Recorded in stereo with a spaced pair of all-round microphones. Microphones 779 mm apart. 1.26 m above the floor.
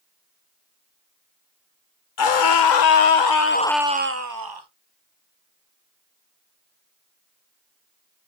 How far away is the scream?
About 1.1 m.